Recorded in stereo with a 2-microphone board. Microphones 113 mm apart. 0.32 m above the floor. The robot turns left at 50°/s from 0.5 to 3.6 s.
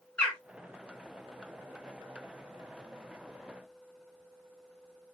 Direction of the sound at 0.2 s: 10° left (ahead or behind).